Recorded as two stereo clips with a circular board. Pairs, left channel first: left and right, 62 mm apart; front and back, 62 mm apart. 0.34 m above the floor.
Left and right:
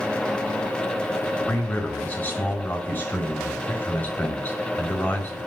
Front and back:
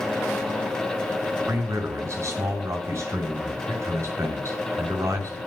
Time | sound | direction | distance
1.5 | a man speaking | 150° left | 5 m